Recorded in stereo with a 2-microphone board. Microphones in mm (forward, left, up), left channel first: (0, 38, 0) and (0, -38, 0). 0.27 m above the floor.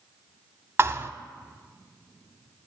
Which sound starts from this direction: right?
A thud, at 0.8 s.